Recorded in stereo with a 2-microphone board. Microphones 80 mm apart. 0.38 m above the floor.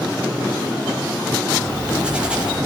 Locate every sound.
1.6 s writing: 15° right (ahead or behind), 8.5 m